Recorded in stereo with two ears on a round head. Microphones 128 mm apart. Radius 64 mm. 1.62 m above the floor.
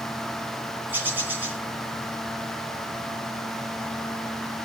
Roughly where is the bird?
Centre.